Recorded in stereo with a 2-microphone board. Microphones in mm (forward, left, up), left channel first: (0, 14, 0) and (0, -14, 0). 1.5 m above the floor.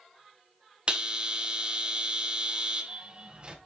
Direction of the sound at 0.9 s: 35° right (ahead or behind).